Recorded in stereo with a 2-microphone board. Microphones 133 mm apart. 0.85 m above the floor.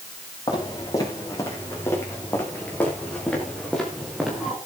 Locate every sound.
0.5 s footsteps: 30° left (ahead or behind), 10 m; by 4.6 s 5° right (ahead or behind), 8.5 m